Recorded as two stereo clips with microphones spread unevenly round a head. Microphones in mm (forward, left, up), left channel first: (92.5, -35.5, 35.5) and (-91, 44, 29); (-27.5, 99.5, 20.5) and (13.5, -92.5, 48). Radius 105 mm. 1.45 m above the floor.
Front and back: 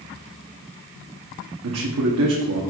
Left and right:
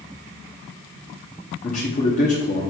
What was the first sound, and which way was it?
A man speaking, 155° left.